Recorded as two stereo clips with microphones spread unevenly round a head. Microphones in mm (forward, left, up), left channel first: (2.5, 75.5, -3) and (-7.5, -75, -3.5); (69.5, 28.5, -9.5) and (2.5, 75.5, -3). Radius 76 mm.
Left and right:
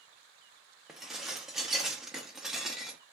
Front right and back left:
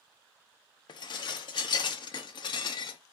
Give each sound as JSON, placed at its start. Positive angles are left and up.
{"t": 0.9, "sound": "dishes clattering", "azimuth_deg": -5, "distance_m": 0.8}